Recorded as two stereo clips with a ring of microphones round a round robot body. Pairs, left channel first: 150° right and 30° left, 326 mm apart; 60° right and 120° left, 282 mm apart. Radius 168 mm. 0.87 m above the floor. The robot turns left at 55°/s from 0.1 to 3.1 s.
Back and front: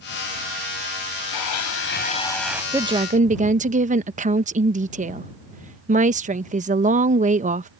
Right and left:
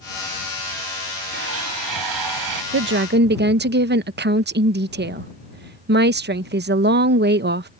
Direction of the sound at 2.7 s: 110° left.